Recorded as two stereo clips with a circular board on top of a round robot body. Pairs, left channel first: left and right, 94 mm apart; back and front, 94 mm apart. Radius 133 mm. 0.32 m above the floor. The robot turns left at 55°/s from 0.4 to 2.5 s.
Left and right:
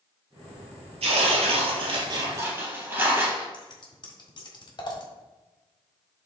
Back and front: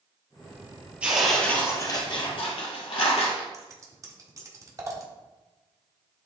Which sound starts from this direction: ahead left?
Scissors, at 3.5 s.